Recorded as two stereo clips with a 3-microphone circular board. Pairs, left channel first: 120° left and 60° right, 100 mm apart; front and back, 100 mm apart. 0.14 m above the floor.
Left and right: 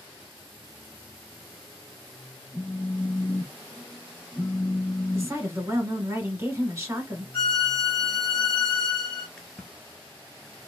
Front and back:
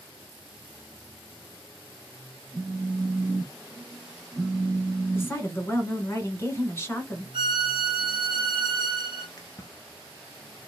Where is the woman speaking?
40° right, 1.1 m.